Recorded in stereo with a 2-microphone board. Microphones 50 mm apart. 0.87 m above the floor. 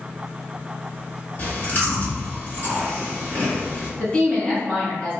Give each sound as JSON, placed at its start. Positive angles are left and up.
{"t": 1.4, "sound": "chewing", "side_deg": 35, "distance_m": 1.4}
{"t": 4.0, "sound": "a woman speaking", "side_deg": 25, "distance_m": 1.9}